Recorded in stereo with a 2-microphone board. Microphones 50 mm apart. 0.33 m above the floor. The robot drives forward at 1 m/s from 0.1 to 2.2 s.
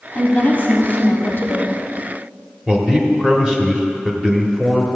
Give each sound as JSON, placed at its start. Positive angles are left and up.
{"t": 0.1, "sound": "a woman speaking", "side_deg": 30, "distance_m": 1.8}
{"t": 2.7, "sound": "a man speaking", "side_deg": -15, "distance_m": 1.1}